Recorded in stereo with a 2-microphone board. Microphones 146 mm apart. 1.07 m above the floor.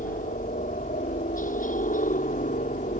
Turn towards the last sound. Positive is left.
turn(degrees=65)  # may be behind; listen again after turning